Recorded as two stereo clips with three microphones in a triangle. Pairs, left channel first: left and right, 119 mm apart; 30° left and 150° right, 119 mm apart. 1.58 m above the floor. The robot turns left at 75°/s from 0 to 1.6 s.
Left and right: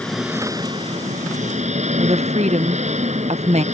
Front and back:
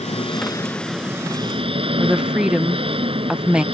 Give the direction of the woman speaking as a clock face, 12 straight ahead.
2 o'clock.